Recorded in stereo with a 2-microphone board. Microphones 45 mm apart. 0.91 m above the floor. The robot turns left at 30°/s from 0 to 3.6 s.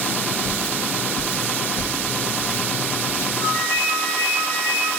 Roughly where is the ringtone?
Left.